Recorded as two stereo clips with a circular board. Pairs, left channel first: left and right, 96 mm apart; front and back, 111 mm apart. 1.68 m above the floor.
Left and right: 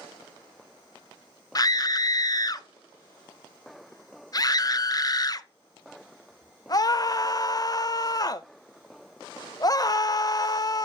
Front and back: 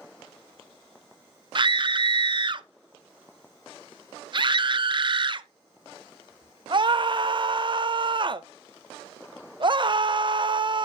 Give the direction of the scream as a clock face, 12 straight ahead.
7 o'clock.